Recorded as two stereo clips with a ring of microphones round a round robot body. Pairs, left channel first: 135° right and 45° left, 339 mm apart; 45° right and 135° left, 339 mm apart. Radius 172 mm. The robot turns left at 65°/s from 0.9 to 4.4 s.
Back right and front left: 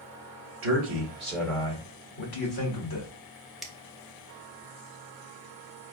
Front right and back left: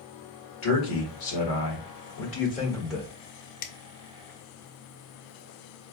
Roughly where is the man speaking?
Ahead.